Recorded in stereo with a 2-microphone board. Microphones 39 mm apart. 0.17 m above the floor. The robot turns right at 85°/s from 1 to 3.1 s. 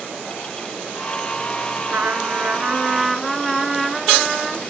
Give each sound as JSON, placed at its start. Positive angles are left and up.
{"t": 1.9, "sound": "a trumpet", "azimuth_deg": -105, "distance_m": 2.0}